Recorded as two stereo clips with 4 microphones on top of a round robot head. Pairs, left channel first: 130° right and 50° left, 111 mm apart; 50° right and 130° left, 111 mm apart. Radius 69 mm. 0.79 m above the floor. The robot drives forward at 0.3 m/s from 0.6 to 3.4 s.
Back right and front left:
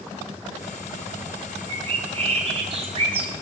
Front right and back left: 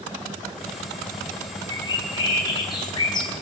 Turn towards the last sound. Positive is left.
turn(degrees=5)